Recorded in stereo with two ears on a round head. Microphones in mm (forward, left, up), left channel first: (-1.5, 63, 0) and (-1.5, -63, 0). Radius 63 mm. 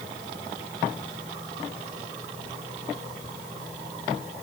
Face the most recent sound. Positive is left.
No sound to turn to.